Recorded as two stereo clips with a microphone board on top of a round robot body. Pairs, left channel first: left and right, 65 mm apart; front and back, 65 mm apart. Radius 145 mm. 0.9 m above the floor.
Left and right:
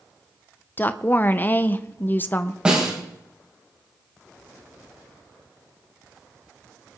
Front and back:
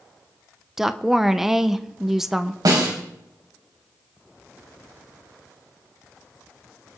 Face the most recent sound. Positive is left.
turn(degrees=-165)